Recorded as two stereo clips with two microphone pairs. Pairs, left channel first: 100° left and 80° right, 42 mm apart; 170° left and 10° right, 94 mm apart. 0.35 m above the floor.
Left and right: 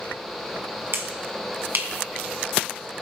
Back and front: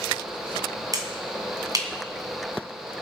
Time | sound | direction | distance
0.9 | a finger snap | 55° right | 2.0 m